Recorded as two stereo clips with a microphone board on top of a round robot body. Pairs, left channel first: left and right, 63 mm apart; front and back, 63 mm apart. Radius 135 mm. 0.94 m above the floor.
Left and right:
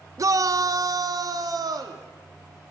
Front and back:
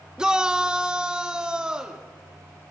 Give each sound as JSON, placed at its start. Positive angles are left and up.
{"t": 0.2, "sound": "a shout", "azimuth_deg": -105, "distance_m": 1.2}